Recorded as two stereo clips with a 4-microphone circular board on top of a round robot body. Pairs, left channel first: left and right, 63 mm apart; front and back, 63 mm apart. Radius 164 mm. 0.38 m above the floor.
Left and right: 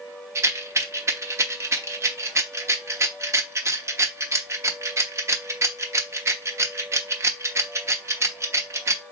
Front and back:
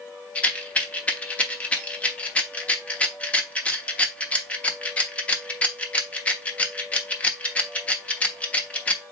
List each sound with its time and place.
0.3 s a rattle: 65° right, 1.1 m